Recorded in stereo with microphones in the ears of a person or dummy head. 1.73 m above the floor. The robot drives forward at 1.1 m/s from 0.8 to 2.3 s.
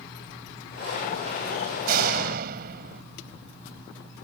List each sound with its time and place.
1.9 s a door slam: 55° right (ahead or behind)